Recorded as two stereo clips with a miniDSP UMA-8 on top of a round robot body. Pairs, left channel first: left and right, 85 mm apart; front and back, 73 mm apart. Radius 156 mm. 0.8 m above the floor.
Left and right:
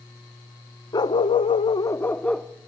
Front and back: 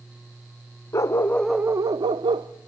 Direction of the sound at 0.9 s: 50° left.